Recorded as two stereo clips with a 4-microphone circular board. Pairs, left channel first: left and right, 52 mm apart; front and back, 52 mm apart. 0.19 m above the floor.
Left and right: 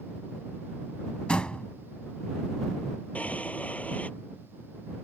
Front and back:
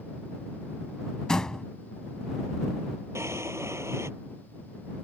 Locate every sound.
1.3 s a door slam: 55° left
3.1 s a drawer: 155° left